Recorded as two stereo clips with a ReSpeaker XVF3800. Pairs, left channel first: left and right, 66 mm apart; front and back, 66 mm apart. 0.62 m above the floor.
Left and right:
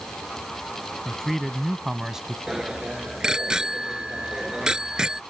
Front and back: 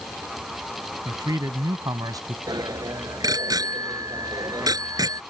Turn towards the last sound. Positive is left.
turn(degrees=-170)